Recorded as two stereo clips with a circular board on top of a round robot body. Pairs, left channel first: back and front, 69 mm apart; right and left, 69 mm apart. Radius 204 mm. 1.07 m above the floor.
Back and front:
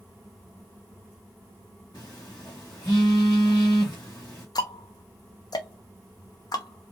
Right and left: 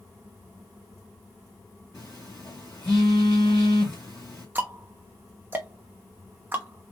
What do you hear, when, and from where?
1.9 s a phone buzzing: 135° right, 0.5 m
4.5 s ticking: 155° left, 0.7 m